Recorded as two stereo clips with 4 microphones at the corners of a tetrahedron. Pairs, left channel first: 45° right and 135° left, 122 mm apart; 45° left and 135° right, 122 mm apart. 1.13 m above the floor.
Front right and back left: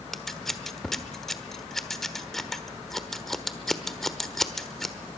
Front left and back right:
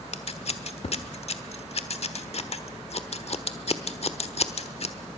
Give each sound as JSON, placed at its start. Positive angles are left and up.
{"t": 0.1, "sound": "scissors", "azimuth_deg": 40, "distance_m": 1.2}